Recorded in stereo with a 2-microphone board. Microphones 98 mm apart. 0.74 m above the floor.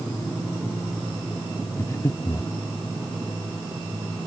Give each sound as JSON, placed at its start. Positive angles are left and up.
{"t": 1.8, "sound": "breathing", "side_deg": 35}